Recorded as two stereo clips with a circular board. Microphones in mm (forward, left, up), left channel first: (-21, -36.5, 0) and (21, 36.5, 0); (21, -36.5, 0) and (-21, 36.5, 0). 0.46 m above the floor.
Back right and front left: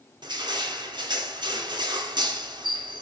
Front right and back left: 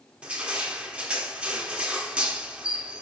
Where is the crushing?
45° left, 2.5 m.